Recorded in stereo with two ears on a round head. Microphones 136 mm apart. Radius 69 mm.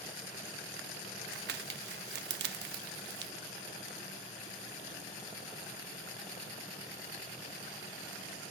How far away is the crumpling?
About 1.0 m.